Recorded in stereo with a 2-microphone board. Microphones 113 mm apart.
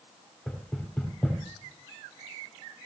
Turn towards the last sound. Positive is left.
turn(degrees=10)  # may be behind; listen again after turning